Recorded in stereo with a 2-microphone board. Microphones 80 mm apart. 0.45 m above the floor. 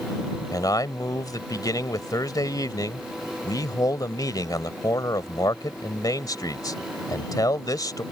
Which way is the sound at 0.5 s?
55° left (ahead or behind).